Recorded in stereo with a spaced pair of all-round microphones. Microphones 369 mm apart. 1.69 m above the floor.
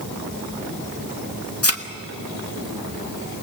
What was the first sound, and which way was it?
A thud, 40° left (ahead or behind).